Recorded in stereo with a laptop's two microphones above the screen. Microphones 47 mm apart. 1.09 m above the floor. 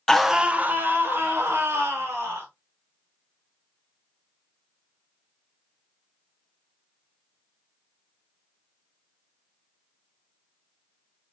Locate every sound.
0.1 s a scream: 10° left (ahead or behind), 0.6 m; by 2.5 s 75° right (ahead or behind), 2.5 m